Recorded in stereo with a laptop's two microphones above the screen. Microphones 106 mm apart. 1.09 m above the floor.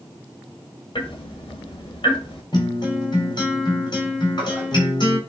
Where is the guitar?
45° left (ahead or behind), 4 m.